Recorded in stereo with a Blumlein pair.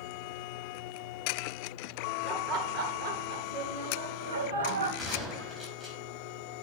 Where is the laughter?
25° right, 2.5 m; by 4.9 s 60° right, 3.5 m.